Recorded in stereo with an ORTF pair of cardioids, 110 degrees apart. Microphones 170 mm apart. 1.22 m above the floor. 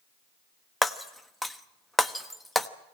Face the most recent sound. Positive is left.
turn(degrees=0)